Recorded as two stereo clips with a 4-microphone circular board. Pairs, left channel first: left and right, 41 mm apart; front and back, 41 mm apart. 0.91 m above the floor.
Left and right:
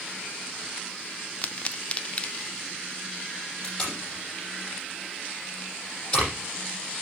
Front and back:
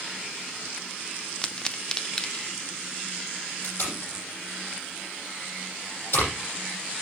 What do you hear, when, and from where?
1.4 s a pop: 60° left, 0.5 m
3.6 s tape being pulled: 20° left, 6.5 m